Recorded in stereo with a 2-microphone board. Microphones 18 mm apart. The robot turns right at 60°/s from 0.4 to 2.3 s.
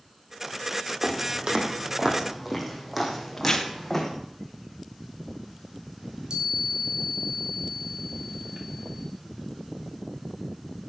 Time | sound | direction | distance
1.0 | footsteps | 55° right (ahead or behind) | 4 m
3.4 | tearing paper | 25° left (ahead or behind) | 2 m
6.0 | a chime | 60° right (ahead or behind) | 2.5 m